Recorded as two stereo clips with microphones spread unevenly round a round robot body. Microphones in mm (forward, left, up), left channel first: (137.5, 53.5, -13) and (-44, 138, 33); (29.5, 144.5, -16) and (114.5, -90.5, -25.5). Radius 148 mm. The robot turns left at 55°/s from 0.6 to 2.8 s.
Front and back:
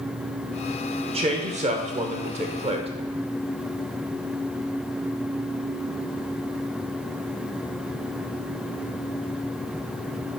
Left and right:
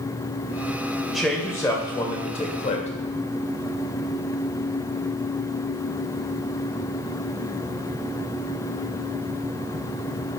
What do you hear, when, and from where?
1.1 s a man speaking: 155° right, 1.2 m; by 2.9 s 110° left, 1.2 m